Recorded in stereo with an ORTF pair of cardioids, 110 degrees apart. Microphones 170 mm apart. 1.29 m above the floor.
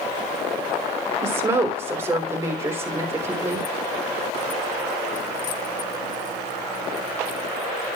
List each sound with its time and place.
1.2 s a woman speaking: 15° right, 3.5 m